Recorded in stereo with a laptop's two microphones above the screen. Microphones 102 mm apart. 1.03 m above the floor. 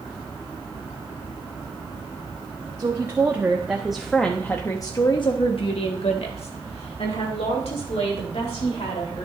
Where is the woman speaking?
30° right (ahead or behind), 1.7 m; by 9.3 s 80° left, 3.5 m.